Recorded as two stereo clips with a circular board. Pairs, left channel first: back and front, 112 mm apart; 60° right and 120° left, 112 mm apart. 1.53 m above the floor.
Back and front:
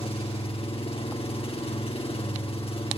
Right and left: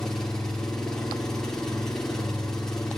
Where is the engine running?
145° right, 4.5 m.